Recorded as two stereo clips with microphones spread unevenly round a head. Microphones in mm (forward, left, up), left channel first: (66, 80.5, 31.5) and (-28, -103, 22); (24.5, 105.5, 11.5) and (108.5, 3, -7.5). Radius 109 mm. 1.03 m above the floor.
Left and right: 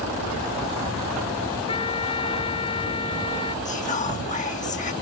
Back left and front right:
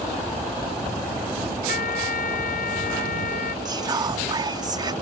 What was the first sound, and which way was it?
A trumpet, 130° left.